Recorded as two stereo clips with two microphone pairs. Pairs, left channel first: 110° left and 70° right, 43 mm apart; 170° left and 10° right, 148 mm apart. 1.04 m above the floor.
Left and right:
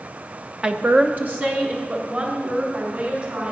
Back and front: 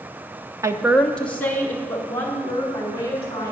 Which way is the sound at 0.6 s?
40° right.